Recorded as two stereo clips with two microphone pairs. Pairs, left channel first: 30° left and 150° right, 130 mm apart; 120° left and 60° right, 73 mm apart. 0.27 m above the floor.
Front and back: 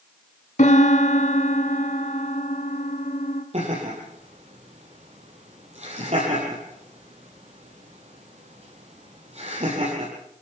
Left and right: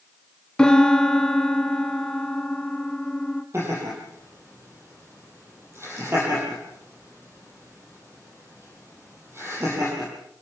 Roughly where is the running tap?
No running tap in this recording.